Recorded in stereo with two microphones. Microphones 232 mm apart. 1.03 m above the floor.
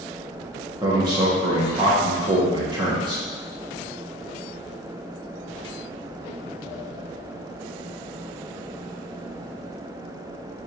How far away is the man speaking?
About 0.9 m.